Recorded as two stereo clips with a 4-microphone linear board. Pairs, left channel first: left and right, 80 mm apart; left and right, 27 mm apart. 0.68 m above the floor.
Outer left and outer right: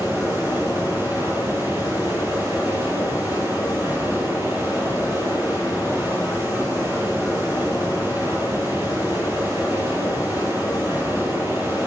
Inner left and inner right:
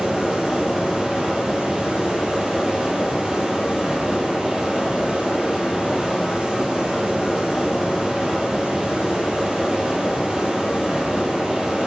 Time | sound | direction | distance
0.0 | running water | 35° right (ahead or behind) | 4 m